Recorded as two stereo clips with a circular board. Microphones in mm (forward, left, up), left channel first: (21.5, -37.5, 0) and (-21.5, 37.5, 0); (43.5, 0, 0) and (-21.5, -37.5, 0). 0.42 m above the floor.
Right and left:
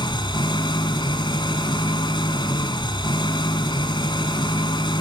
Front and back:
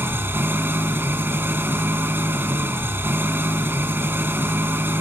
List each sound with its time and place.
0.0 s an engine running: 90° right, 2 m